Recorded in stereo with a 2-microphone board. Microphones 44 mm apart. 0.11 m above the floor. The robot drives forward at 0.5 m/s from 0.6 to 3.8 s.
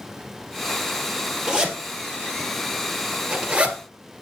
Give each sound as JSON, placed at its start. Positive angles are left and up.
{"t": 1.5, "sound": "a zipper", "side_deg": -15, "distance_m": 2.5}